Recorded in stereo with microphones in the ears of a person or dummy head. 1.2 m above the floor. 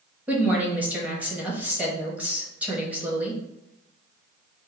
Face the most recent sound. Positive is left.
turn(degrees=-15)  # may be behind; listen again after turning